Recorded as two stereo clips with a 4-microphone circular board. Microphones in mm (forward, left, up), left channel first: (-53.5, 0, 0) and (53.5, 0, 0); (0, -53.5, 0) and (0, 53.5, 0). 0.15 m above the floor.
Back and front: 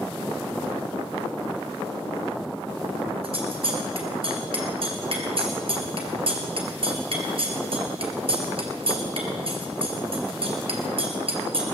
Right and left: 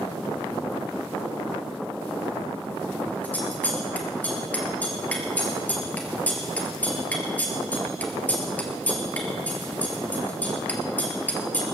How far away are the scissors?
About 2.5 m.